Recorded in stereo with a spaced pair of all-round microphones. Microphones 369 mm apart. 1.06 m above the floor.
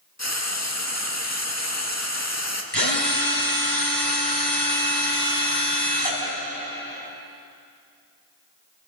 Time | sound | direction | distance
0.2 | frying | 45° left (ahead or behind) | 2.0 m
2.7 | a drill | 85° left | 5 m